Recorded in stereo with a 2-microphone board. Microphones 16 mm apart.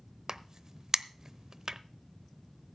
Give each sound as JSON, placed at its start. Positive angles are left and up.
{"t": 0.3, "sound": "a crack", "side_deg": -35, "distance_m": 0.7}